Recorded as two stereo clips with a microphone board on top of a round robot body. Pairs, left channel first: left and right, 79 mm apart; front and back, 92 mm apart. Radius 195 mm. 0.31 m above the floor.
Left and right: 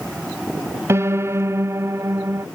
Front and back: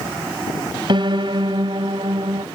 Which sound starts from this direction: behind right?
A piano, at 0.9 s.